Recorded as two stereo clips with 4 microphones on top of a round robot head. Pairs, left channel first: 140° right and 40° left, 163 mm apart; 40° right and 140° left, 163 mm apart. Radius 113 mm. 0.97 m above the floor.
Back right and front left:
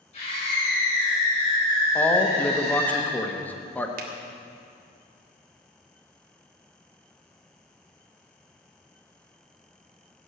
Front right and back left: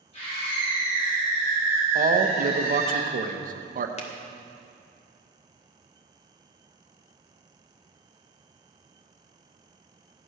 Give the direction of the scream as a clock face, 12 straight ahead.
3 o'clock.